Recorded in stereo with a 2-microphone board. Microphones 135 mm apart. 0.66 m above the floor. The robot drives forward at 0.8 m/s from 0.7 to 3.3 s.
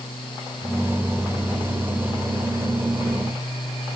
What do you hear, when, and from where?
Only background noise.